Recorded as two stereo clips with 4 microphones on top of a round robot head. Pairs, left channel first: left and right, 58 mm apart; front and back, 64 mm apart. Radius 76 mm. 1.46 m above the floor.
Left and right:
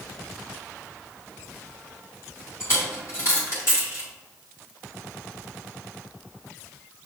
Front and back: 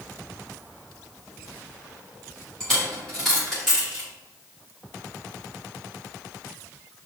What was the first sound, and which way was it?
A dropped coin, 80° left.